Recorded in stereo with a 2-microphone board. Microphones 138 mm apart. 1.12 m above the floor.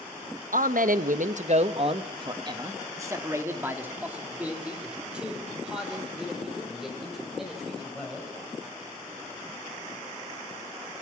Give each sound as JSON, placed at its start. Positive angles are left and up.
{"t": 0.5, "sound": "a man speaking", "side_deg": -80, "distance_m": 1.0}